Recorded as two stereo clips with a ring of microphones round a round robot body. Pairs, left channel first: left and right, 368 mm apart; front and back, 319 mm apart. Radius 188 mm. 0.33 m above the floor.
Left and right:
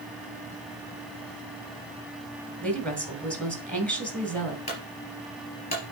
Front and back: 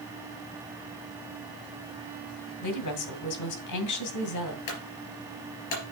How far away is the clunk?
About 3.5 m.